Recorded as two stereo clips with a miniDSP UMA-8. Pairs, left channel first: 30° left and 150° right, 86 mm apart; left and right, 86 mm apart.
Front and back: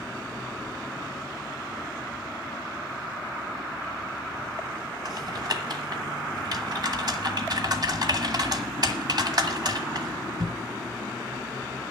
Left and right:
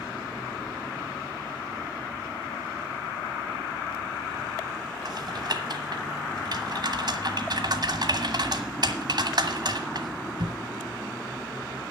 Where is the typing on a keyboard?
120° right, 1.4 m.